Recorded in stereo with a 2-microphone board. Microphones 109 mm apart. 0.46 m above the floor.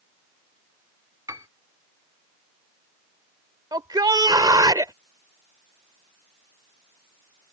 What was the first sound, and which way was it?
A piano, 30° right (ahead or behind).